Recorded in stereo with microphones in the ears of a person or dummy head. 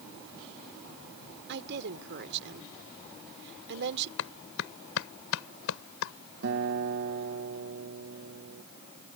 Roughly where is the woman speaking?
Right.